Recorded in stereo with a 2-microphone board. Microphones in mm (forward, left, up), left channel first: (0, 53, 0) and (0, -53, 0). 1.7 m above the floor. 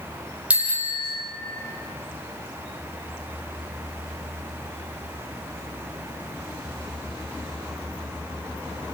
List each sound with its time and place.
0.5 s a bicycle bell: 10° right (ahead or behind), 4.5 m